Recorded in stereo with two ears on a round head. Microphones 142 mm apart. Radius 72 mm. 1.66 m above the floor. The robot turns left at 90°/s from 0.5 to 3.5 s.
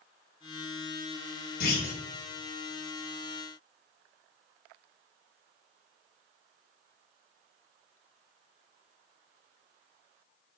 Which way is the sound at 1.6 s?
85° left.